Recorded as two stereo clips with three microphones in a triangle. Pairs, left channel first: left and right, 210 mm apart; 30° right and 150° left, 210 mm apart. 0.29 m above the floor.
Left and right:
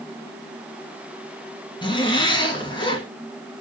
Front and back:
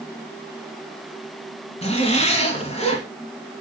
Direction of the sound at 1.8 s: 25° left.